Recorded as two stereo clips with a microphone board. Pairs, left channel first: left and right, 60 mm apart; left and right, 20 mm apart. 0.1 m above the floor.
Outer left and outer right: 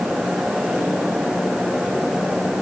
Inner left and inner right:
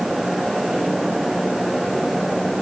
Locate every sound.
Only background noise.